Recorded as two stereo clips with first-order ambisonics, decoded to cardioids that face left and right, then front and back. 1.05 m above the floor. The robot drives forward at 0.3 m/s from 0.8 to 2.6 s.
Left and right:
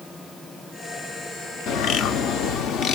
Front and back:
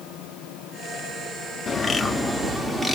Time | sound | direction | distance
1.7 | a bird | 65° left | 0.6 m